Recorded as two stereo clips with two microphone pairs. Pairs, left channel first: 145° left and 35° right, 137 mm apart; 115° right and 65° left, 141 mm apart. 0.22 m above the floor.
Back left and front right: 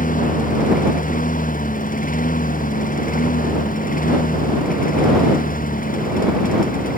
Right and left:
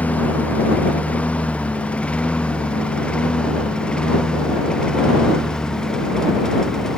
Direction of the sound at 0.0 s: 165° left.